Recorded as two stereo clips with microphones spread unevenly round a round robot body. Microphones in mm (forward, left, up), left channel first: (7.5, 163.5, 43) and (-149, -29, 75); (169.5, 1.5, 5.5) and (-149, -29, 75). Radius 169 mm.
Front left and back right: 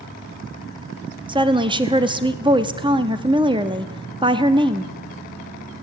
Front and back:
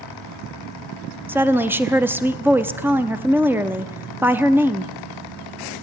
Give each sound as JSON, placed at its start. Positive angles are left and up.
{"t": 1.3, "sound": "a woman speaking", "azimuth_deg": -65, "distance_m": 0.9}